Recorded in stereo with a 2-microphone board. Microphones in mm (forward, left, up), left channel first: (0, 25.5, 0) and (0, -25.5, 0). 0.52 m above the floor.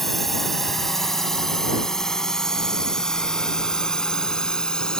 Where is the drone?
5° left (ahead or behind); by 5.0 s 15° left (ahead or behind).